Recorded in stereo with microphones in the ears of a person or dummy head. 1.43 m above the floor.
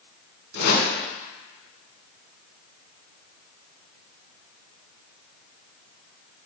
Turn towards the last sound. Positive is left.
turn(degrees=65)  # may be behind; listen again after turning